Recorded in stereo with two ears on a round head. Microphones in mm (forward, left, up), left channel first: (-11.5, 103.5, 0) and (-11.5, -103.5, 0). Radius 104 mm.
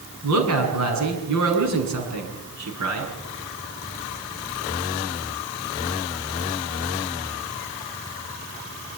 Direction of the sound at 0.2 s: 85° right.